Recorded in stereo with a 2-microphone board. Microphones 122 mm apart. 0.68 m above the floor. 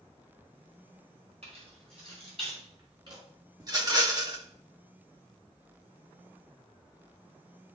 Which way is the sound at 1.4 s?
60° right (ahead or behind).